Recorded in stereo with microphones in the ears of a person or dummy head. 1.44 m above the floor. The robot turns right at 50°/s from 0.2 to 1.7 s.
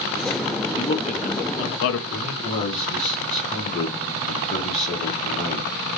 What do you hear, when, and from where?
0.8 s a man speaking: 30° left, 0.6 m; by 2.0 s 80° left, 0.6 m
2.1 s a man speaking: 40° left (ahead or behind), 1.3 m